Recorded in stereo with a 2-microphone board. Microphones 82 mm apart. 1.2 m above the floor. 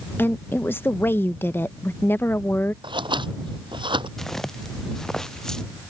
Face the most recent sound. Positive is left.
turn(degrees=5)  # may be behind; listen again after turning